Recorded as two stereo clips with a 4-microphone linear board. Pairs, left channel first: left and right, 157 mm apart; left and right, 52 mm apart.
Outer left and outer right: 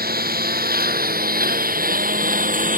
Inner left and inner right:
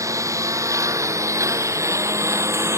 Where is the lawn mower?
75° right (ahead or behind); by 2.8 s 60° right (ahead or behind).